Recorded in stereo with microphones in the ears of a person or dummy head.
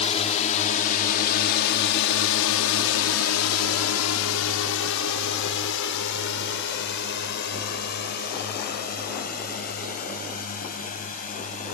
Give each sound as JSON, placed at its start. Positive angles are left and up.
{"t": 0.0, "sound": "a drone", "side_deg": 35}